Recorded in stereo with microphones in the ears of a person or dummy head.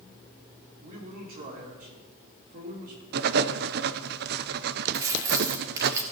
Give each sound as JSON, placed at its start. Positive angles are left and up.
{"t": 0.8, "sound": "a man speaking", "side_deg": -50, "distance_m": 3.0}
{"t": 3.1, "sound": "writing", "side_deg": -55, "distance_m": 0.5}
{"t": 4.9, "sound": "keys jangling", "side_deg": -15, "distance_m": 1.8}